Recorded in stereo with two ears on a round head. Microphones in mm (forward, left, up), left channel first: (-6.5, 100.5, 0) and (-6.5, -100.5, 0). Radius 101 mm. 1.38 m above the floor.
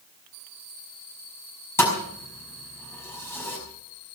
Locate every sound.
1.8 s a thud: 10° left (ahead or behind), 5.5 m